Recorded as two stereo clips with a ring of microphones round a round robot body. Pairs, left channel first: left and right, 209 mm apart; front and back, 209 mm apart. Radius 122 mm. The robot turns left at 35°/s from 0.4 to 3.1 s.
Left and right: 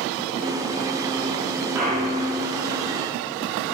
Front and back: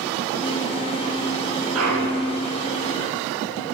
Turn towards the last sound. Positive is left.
turn(degrees=140)